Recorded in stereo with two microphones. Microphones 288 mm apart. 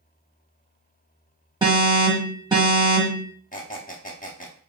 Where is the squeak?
30° left (ahead or behind), 0.5 m.